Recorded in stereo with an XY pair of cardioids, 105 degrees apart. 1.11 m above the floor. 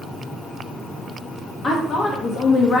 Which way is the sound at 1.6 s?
50° left.